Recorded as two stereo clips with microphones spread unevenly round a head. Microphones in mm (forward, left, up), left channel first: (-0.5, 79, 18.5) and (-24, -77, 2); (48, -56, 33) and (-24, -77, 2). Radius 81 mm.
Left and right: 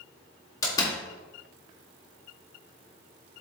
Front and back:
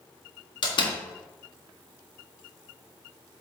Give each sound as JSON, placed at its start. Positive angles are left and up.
{"t": 0.6, "sound": "a door slam", "azimuth_deg": 10, "distance_m": 1.6}